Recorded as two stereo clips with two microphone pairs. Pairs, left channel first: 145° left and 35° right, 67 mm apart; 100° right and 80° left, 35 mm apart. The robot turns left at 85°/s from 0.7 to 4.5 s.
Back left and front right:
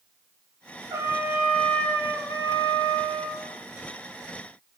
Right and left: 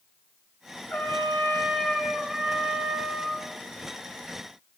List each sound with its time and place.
0.9 s a trumpet: 70° right, 3 m; by 3.5 s 70° left, 3 m